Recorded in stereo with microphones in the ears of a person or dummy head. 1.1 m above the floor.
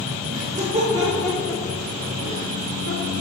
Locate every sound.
0.3 s laughter: 50° right (ahead or behind), 1.7 m; by 3.1 s 75° left (ahead or behind), 2.5 m